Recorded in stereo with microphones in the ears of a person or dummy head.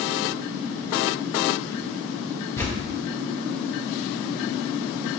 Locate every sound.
2.6 s tearing paper: 10° left (ahead or behind), 0.8 m